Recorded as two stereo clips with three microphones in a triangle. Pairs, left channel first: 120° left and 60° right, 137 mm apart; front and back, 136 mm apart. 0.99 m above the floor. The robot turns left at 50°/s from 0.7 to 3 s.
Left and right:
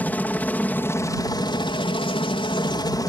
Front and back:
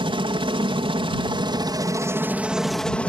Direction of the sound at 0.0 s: 170° right.